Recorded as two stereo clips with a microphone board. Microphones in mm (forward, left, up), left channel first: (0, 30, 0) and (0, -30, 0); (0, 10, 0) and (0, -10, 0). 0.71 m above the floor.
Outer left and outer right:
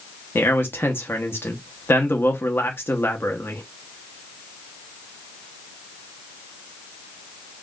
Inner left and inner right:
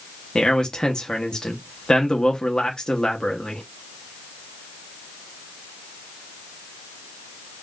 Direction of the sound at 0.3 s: 35° left (ahead or behind).